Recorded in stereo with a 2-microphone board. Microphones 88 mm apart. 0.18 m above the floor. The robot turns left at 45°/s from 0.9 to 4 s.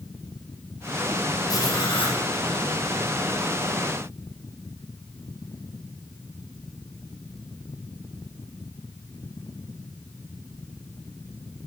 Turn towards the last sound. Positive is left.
turn(degrees=20)